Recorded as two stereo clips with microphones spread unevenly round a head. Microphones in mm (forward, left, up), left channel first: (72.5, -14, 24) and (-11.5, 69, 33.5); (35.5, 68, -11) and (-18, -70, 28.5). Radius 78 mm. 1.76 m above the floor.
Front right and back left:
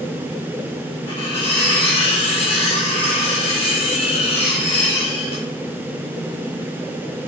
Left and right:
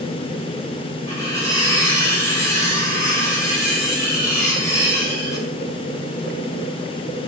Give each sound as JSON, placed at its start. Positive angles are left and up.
{"t": 1.1, "sound": "cutlery clinking", "azimuth_deg": -10, "distance_m": 3.0}